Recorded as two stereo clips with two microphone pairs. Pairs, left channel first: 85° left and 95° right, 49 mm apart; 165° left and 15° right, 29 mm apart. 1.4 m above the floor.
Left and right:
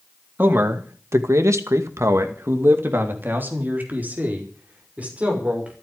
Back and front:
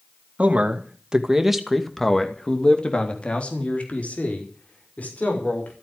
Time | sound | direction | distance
0.4 | a man speaking | 55° right | 2.5 m